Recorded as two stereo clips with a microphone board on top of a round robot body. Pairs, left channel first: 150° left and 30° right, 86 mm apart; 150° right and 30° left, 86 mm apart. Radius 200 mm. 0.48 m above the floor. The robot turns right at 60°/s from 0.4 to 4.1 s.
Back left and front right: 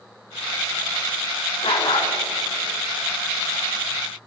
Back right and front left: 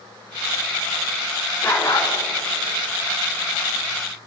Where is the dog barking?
145° left, 3 m; by 2.1 s 175° left, 3 m.